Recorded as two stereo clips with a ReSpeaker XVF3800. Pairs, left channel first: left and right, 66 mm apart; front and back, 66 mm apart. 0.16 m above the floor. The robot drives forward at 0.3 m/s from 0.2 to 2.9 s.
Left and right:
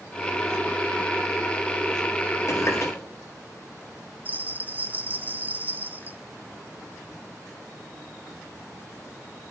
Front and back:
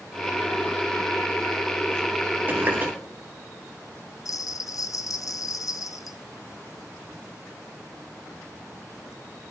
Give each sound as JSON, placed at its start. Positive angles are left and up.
{"t": 2.5, "sound": "a running tap", "azimuth_deg": 125, "distance_m": 2.0}
{"t": 4.2, "sound": "a bell", "azimuth_deg": -25, "distance_m": 0.7}